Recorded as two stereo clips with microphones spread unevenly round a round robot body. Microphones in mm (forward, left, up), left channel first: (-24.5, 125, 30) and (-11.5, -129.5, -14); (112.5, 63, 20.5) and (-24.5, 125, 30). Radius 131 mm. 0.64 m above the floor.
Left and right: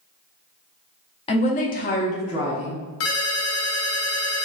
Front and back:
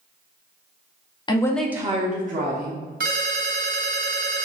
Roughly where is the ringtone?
Behind left.